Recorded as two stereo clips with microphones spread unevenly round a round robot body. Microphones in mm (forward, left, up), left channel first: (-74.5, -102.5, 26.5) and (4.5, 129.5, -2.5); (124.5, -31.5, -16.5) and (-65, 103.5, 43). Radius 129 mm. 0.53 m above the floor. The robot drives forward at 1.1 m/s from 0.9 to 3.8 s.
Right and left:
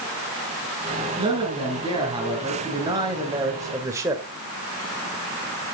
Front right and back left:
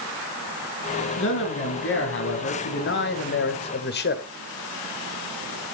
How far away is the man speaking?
About 4.5 m.